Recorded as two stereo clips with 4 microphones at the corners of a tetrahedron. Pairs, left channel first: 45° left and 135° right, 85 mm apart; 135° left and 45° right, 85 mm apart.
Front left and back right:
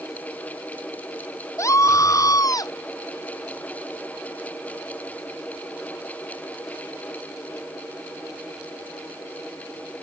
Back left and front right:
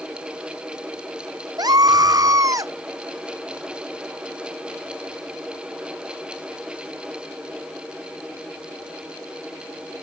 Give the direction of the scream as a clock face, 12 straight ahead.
12 o'clock.